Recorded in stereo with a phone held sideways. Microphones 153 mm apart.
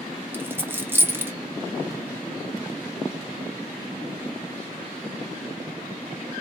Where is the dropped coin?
15° right (ahead or behind), 0.6 m.